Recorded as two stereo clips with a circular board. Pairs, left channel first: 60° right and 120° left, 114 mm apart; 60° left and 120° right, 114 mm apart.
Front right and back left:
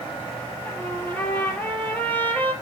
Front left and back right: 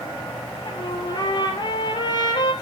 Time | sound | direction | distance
0.7 | a trumpet | 10° left | 2.5 m